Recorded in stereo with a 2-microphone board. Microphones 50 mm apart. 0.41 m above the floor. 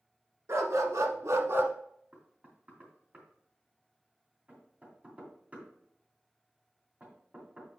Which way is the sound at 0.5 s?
70° right (ahead or behind).